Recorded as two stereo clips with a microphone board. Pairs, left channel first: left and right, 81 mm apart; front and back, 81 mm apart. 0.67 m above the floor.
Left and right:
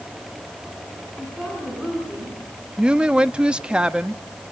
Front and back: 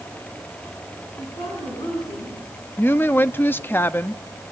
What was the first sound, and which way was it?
A woman speaking, 5° right.